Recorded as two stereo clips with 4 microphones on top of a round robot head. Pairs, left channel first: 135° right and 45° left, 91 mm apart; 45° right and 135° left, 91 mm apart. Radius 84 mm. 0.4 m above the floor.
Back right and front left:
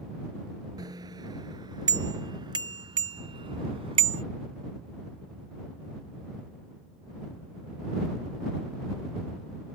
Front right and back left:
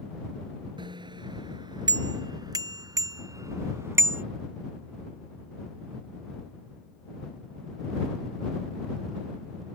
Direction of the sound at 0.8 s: 95° left.